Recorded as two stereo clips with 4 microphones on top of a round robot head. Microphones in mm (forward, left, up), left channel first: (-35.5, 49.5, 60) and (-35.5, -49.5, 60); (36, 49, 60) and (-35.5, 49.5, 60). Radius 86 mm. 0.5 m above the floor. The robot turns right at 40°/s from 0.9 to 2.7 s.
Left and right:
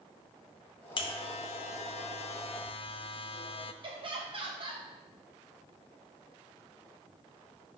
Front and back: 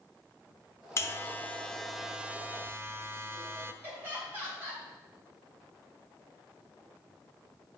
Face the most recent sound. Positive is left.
turn(degrees=-115)